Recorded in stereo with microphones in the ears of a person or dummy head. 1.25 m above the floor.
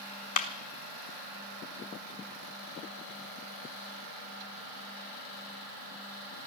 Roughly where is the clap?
Left.